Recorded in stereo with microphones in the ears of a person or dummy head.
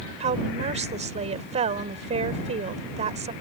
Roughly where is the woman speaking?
Right.